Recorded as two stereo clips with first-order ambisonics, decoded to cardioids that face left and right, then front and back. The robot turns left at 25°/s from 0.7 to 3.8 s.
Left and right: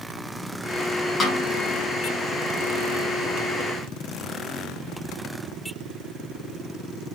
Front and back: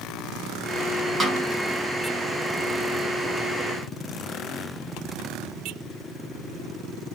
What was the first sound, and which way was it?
A snare drum, 130° left.